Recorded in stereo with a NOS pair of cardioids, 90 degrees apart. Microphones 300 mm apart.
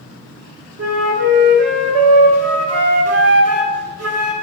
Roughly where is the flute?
Ahead right.